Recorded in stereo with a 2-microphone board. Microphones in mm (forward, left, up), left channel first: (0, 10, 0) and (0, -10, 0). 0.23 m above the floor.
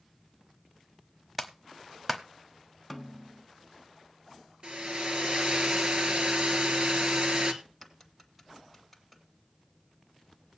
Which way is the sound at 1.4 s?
5° right (ahead or behind).